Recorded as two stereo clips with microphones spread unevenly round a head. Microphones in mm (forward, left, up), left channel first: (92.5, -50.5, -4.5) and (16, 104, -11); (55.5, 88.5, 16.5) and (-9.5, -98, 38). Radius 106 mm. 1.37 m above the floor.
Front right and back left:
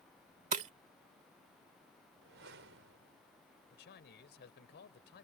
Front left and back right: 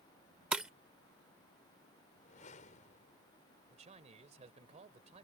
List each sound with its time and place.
0.5 s breaking glass: 170° left
2.2 s a whoosh: 125° left
3.7 s a man speaking: 55° right